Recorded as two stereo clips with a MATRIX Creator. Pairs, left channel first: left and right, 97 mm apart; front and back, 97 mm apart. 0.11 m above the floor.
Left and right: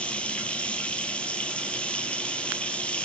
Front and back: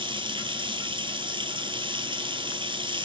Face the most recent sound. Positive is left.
turn(degrees=165)